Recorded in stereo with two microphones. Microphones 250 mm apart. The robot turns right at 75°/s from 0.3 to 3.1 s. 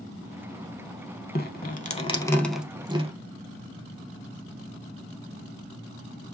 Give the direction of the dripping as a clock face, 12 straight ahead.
9 o'clock.